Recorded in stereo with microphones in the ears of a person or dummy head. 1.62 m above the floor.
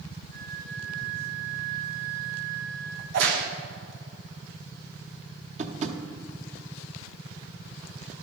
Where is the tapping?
45° right (ahead or behind), 1.0 m.